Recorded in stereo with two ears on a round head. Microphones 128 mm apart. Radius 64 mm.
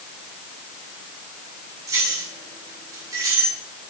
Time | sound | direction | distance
1.9 | keys jangling | 25° right (ahead or behind) | 5.5 m